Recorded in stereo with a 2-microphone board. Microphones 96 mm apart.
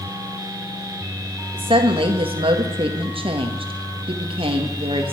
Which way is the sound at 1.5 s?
70° right (ahead or behind).